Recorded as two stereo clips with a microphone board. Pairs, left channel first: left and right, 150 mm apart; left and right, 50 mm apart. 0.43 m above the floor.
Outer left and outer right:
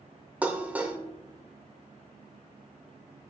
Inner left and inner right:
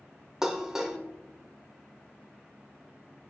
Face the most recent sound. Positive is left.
turn(degrees=-10)  # may be behind; listen again after turning